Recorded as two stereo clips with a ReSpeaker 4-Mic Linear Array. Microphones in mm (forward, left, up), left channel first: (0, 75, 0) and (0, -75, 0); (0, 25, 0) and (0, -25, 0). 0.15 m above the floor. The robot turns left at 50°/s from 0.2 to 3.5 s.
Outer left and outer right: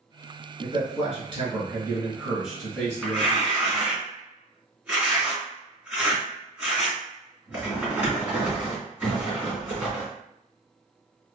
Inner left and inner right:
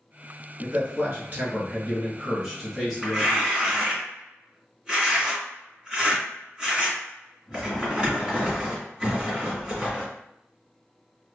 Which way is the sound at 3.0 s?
Centre (ahead or behind).